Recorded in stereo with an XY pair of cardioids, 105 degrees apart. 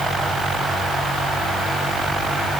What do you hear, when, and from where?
Only background noise.